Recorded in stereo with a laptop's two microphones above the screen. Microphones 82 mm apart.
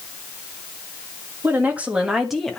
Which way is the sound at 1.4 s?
25° right (ahead or behind).